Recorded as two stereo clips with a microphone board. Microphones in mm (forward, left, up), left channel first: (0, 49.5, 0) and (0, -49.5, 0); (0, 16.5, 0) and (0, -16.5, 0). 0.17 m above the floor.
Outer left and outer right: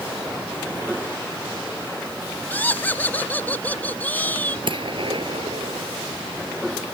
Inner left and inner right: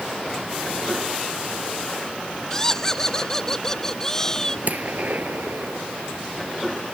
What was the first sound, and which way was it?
Laughter, 15° left (ahead or behind).